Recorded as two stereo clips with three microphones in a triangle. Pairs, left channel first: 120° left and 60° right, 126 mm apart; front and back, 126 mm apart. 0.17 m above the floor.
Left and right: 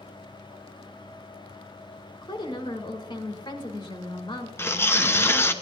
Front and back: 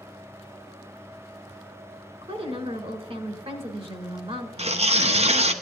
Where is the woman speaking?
160° left, 1.7 m.